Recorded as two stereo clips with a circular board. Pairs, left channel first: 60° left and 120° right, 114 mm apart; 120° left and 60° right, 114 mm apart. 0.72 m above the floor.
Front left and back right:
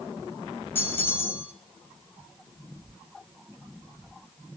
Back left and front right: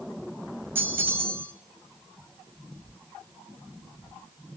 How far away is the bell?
About 0.6 m.